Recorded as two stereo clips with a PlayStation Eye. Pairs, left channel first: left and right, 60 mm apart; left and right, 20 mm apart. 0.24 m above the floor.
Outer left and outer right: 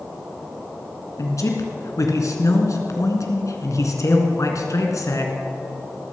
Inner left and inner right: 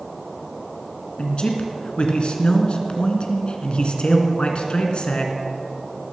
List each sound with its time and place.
1.2 s a man speaking: 65° left (ahead or behind), 2.5 m